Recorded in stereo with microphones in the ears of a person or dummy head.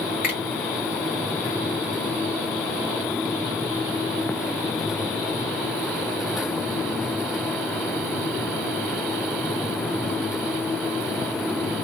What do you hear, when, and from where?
0.2 s a finger snap: 15° right (ahead or behind), 1.6 m